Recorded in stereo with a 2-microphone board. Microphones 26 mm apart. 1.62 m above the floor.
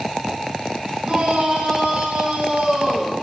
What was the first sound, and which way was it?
A shout, 50° right (ahead or behind).